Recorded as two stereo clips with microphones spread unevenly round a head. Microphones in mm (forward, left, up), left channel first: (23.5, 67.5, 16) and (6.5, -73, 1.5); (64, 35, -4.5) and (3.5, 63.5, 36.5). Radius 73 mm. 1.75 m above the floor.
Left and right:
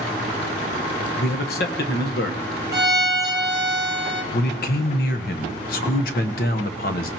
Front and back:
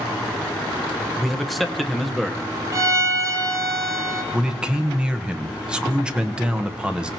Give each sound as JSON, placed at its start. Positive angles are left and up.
{"t": 1.2, "sound": "a man speaking", "azimuth_deg": 80, "distance_m": 1.2}
{"t": 2.7, "sound": "a violin", "azimuth_deg": -165, "distance_m": 1.1}
{"t": 4.3, "sound": "a man speaking", "azimuth_deg": 100, "distance_m": 1.1}